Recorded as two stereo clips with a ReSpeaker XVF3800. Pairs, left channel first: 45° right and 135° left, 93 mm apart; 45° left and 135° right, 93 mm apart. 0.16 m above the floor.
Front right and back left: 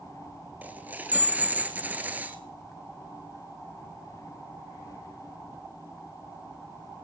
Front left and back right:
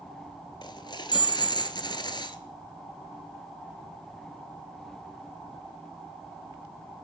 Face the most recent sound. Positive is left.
turn(degrees=65)